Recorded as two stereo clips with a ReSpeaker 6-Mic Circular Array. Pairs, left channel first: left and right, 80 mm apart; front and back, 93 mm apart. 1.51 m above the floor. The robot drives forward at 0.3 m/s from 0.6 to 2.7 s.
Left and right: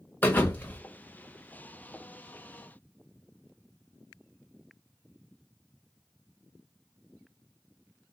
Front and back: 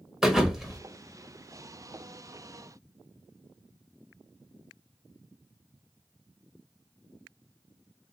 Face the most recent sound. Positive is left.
turn(degrees=155)